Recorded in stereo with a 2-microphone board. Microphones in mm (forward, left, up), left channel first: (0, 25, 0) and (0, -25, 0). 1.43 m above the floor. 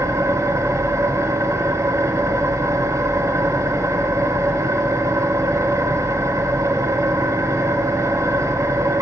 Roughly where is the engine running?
Right.